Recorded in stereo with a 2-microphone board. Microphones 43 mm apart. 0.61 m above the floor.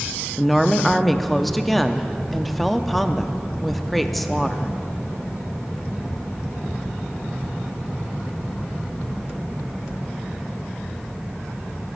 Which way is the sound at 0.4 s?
5° left (ahead or behind).